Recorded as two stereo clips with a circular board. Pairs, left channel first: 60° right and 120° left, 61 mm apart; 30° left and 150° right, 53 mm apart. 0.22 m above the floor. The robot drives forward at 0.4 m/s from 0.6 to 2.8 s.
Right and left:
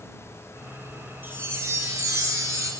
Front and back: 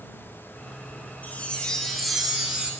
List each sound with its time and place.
1.2 s a chime: 75° left, 0.5 m; by 2.7 s 140° left, 0.7 m